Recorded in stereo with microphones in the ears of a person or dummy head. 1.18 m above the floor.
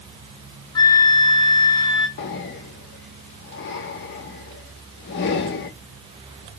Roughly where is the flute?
Left.